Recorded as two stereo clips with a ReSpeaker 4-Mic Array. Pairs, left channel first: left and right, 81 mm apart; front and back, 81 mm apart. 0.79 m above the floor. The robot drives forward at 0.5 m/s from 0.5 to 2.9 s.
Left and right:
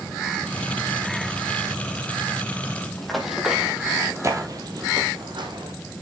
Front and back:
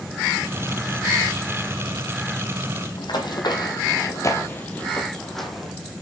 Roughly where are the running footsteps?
Ahead.